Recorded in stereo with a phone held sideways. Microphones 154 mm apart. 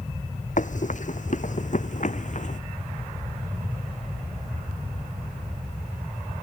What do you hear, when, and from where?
0.6 s running footsteps: 55° left (ahead or behind)